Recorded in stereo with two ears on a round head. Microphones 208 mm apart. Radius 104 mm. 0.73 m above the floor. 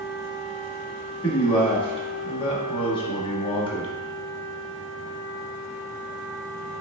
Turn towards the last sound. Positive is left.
turn(degrees=25)  # may be behind; listen again after turning